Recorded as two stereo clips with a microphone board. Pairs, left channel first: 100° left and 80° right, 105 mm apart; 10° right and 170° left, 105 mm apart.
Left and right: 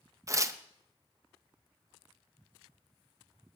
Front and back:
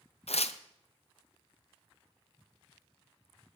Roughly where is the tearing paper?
Ahead.